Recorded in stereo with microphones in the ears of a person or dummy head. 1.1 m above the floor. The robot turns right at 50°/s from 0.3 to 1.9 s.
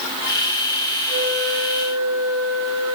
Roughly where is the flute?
Behind right.